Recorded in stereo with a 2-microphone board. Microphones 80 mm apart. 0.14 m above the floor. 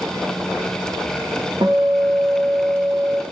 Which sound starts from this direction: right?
A guitar, at 1.6 s.